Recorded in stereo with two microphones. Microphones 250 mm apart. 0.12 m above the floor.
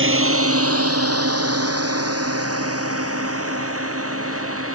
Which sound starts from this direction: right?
A drone, at 0.0 s.